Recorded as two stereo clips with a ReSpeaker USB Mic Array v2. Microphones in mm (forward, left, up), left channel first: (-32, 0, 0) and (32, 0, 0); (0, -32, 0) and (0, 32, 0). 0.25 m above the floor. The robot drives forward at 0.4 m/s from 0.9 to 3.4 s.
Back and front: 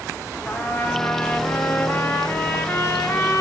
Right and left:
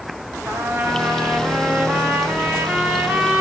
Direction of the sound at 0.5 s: 125° left.